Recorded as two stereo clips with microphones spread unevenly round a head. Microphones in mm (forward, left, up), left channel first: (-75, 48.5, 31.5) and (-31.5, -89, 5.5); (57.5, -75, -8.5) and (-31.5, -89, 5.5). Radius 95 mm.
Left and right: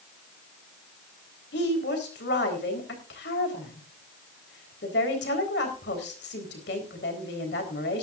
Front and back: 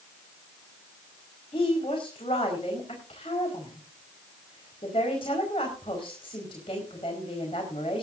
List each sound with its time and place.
1.5 s a woman speaking: 70° left, 4 m